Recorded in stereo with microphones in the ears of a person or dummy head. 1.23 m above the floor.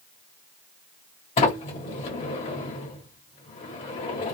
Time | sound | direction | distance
1.4 | a sliding door | 35° left (ahead or behind) | 1.4 m